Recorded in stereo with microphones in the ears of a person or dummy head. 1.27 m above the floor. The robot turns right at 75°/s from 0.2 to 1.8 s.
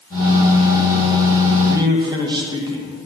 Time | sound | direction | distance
1.6 | a man speaking | 5° right (ahead or behind) | 1.6 m